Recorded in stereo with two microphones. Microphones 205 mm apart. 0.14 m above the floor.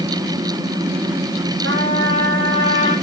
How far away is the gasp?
I don't hear a gasp.